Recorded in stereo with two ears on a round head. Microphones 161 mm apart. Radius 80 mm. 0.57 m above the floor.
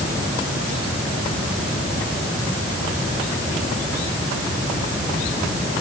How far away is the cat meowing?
No cat meowing in this recording.